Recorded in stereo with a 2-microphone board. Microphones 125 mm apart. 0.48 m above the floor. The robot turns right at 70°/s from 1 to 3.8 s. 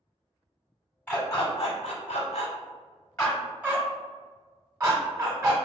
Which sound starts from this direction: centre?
A dog barking, at 1.1 s.